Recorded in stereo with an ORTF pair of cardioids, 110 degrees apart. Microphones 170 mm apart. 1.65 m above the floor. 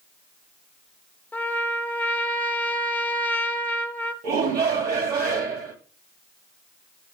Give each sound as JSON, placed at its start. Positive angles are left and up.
{"t": 1.3, "sound": "a trumpet", "azimuth_deg": 10, "distance_m": 0.7}
{"t": 4.2, "sound": "a shout", "azimuth_deg": -65, "distance_m": 2.0}